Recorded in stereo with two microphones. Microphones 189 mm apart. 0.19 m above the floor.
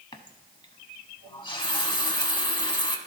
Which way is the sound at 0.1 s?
25° left (ahead or behind).